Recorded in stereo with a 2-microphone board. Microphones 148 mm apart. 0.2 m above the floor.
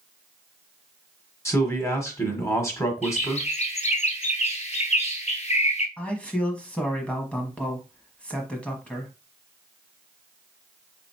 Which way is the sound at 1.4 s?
20° left (ahead or behind).